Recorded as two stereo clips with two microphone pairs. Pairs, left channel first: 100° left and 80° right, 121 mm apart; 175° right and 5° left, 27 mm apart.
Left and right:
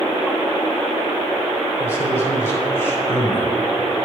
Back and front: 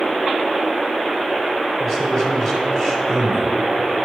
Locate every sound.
1.8 s a man speaking: 130° left, 1.7 m